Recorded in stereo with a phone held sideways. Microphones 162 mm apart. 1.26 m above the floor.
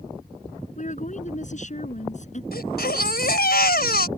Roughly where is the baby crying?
Left.